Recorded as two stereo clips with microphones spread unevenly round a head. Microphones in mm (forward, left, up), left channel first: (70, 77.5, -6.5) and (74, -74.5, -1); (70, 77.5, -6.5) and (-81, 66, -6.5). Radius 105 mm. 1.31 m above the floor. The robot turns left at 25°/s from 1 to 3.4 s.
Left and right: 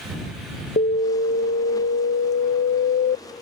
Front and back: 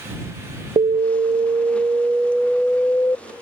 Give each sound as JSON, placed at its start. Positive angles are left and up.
{"t": 0.8, "sound": "an alarm", "azimuth_deg": 130}